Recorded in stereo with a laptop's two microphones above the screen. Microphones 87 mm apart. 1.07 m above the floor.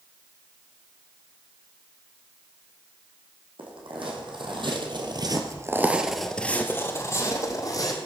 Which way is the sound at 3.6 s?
75° right (ahead or behind).